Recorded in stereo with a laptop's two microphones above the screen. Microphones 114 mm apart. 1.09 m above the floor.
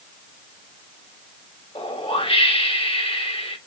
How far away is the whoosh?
About 1.1 m.